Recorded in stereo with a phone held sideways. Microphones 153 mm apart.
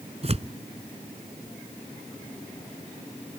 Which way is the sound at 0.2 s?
45° right (ahead or behind).